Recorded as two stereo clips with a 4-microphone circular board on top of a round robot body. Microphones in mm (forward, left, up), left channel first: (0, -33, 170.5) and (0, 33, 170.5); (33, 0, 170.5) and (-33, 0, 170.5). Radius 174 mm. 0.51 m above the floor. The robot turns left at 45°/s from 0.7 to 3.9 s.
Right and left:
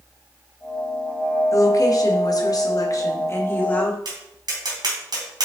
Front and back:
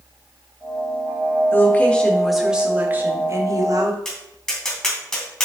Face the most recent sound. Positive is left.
turn(degrees=80)